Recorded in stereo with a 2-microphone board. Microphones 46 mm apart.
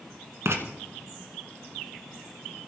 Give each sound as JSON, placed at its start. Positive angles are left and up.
{"t": 0.5, "sound": "writing", "side_deg": -60, "distance_m": 1.5}